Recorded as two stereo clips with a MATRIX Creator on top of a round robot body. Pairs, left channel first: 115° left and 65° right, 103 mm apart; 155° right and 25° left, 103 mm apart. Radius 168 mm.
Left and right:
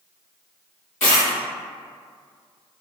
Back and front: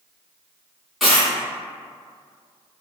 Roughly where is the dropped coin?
Left.